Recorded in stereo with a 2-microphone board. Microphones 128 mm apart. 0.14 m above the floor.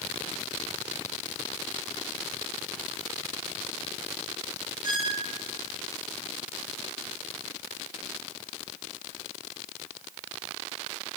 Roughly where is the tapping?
I don't hear tapping.